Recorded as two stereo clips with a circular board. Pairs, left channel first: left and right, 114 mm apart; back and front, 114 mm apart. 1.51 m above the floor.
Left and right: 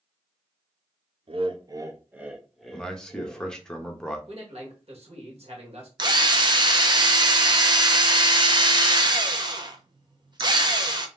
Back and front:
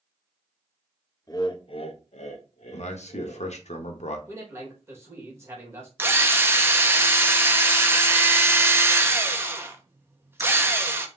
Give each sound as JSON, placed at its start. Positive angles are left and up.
{"t": 1.3, "sound": "laughter", "azimuth_deg": -120, "distance_m": 0.7}
{"t": 2.7, "sound": "a man speaking", "azimuth_deg": 175, "distance_m": 0.9}
{"t": 4.3, "sound": "a man speaking", "azimuth_deg": -65, "distance_m": 1.8}
{"t": 6.0, "sound": "a drill", "azimuth_deg": -60, "distance_m": 0.6}